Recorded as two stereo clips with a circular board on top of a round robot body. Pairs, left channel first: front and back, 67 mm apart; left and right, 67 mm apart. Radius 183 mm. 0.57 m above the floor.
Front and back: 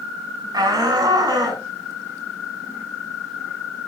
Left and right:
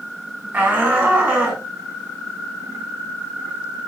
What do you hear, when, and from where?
0.5 s a shout: 155° right, 5.5 m